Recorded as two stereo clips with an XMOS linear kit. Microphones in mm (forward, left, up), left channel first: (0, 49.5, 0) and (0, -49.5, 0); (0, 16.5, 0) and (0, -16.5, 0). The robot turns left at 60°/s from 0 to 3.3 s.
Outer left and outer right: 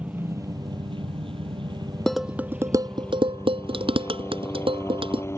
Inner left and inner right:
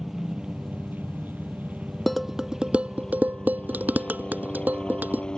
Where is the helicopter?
15° right; by 5.4 s 150° left.